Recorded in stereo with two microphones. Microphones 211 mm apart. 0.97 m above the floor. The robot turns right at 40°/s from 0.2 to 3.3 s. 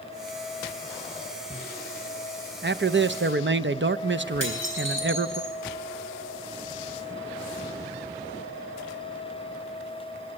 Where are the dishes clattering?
70° right (ahead or behind), 6 m.